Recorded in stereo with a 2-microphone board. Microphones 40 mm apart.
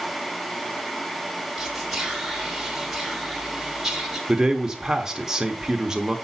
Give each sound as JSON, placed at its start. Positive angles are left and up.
{"t": 1.6, "sound": "whispering", "side_deg": -10, "distance_m": 1.6}
{"t": 4.3, "sound": "a man speaking", "side_deg": -15, "distance_m": 0.8}